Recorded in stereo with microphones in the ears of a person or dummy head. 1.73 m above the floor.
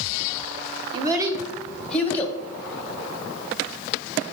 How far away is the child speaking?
About 0.9 m.